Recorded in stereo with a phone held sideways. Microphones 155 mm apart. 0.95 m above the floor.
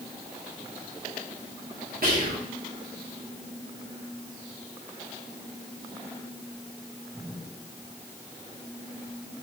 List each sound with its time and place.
2.0 s whispering: 65° right (ahead or behind), 0.6 m